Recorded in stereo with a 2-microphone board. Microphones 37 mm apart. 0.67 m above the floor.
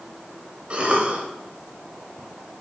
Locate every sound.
0.7 s a cough: 30° right (ahead or behind), 3.5 m